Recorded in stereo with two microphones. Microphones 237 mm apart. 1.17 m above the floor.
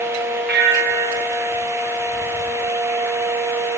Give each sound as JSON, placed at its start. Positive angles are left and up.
{"t": 0.5, "sound": "a bell", "side_deg": -45, "distance_m": 1.0}